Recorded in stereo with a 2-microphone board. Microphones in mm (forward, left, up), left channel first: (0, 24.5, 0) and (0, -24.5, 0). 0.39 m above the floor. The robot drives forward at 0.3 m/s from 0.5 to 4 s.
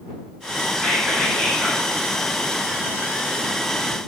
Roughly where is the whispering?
Centre.